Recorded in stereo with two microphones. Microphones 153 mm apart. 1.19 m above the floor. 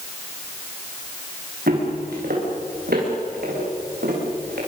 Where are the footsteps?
75° right (ahead or behind), 8 m; by 4.6 s 85° right, 9 m.